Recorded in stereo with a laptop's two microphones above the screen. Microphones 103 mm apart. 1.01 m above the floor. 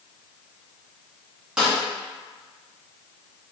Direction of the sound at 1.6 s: 10° right (ahead or behind).